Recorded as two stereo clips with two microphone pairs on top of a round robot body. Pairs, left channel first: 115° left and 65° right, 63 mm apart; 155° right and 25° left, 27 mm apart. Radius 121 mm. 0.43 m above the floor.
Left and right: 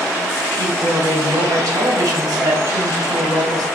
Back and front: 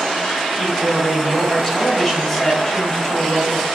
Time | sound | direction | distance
0.5 | a woman speaking | 75° right | 4 m